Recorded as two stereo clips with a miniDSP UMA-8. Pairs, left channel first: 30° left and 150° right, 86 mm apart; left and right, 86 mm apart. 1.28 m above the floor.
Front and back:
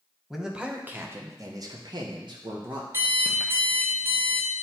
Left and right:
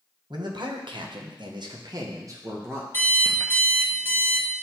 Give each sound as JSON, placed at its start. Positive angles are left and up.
{"t": 0.3, "sound": "a man speaking", "azimuth_deg": -65, "distance_m": 1.2}
{"t": 2.9, "sound": "an alarm clock", "azimuth_deg": 150, "distance_m": 1.4}